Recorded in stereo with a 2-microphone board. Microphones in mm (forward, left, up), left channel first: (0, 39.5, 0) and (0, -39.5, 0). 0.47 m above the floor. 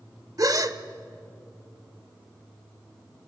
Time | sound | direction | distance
0.4 | a gasp | 50° right (ahead or behind) | 0.9 m